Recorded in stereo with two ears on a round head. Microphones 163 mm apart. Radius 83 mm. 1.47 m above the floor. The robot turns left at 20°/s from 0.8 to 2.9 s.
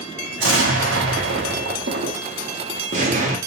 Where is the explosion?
95° right, 0.7 m; by 3.4 s 140° right, 0.7 m.